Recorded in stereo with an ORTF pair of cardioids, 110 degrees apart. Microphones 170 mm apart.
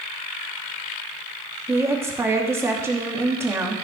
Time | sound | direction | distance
1.7 | a woman speaking | 15° right | 2.5 m